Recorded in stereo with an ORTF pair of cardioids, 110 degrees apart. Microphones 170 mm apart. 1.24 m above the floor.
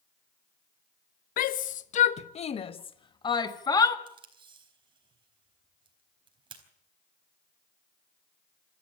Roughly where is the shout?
Ahead left.